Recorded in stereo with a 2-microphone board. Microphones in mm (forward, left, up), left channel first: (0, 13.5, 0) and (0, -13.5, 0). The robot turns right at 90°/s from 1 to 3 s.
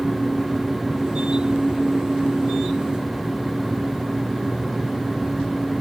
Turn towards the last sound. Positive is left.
No sound to turn to.